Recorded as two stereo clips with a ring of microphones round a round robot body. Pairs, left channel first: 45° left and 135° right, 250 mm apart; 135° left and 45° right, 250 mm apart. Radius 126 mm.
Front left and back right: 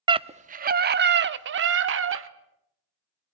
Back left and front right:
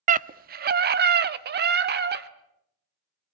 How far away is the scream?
About 0.6 m.